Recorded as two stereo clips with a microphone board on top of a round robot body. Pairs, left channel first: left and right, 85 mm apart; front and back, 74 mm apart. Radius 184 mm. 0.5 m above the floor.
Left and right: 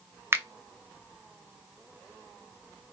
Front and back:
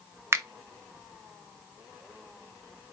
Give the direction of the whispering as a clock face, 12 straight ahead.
No whispering in this recording.